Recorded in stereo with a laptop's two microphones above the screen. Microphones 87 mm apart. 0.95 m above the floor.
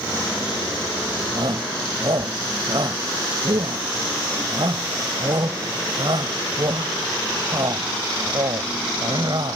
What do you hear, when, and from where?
1.4 s a shout: 60° right (ahead or behind)